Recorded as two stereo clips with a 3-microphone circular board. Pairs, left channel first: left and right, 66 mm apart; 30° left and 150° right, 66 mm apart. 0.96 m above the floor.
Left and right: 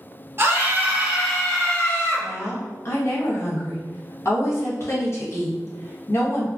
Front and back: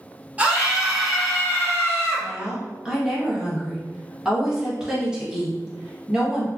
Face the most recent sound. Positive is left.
turn(degrees=130)